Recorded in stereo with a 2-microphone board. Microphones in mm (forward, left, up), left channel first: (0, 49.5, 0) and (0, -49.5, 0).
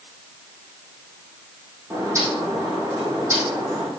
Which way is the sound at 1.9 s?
30° right (ahead or behind).